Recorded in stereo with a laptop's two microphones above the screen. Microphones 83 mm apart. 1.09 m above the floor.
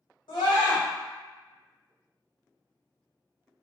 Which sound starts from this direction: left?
A scream, at 0.3 s.